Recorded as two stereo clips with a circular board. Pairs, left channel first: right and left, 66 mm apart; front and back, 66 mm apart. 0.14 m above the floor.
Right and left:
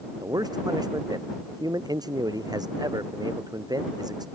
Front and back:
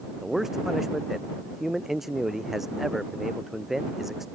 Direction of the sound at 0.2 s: 95° left.